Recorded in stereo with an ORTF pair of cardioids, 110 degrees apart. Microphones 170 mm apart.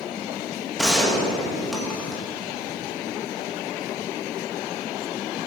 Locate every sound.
0.8 s a gunshot: straight ahead, 2.5 m